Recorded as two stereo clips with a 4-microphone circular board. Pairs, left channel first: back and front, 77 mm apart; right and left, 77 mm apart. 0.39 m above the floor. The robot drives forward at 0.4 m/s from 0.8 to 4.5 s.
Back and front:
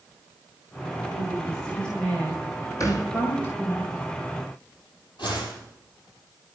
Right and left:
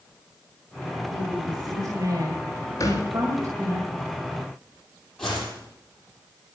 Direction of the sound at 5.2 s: 175° right.